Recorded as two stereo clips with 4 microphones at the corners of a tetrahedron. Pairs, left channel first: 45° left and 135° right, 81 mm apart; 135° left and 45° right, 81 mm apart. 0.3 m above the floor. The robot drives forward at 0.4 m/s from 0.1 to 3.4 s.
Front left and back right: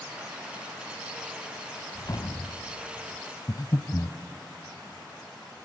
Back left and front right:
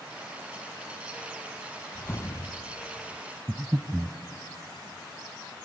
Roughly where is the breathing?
Ahead.